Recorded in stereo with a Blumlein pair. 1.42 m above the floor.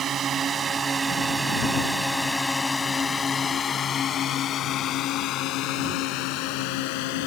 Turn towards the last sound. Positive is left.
turn(degrees=50)